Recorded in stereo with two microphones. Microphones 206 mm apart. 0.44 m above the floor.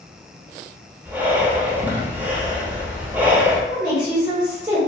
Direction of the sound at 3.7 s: 25° right (ahead or behind).